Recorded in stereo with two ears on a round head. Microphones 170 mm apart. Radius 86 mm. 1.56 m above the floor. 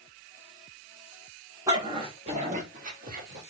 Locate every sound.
1.7 s a dog barking: 20° right (ahead or behind), 1.0 m; by 3.4 s 50° right (ahead or behind), 1.5 m